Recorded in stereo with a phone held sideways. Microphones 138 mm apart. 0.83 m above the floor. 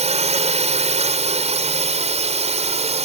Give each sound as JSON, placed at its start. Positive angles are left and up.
{"t": 0.0, "sound": "a drone", "side_deg": -50}